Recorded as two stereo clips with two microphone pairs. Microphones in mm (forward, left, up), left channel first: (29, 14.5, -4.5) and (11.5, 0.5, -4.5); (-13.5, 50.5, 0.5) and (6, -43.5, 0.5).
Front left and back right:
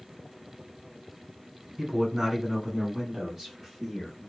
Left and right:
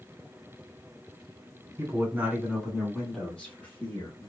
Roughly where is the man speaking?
Right.